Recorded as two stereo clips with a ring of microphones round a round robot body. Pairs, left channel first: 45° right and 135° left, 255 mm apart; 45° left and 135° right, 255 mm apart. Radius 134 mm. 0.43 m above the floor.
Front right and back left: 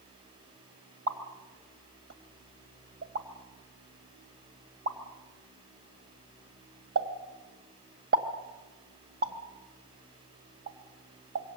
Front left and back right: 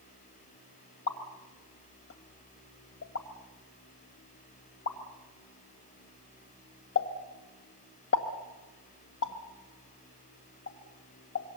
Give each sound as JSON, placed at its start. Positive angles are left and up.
{"t": 1.1, "sound": "a pop", "azimuth_deg": 90, "distance_m": 2.0}